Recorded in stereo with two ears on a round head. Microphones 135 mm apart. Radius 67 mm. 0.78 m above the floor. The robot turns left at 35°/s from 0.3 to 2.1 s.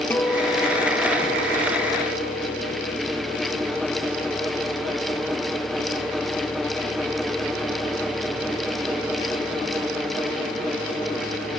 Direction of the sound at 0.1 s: 165° left.